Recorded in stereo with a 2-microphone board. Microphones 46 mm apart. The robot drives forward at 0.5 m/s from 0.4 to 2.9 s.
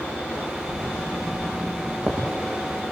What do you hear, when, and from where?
0.7 s writing: 40° right (ahead or behind), 8 m; by 2.2 s 45° right (ahead or behind), 7.5 m